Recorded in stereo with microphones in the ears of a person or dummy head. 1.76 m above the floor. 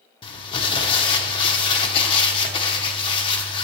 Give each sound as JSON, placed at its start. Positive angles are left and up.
{"t": 0.2, "sound": "crumpling", "side_deg": 30, "distance_m": 0.8}